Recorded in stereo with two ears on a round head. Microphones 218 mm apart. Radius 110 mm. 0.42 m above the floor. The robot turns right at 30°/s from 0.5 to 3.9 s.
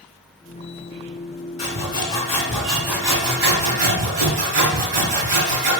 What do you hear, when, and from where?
1.6 s sawing: 150° left, 1.4 m; by 5.7 s 140° right, 1.4 m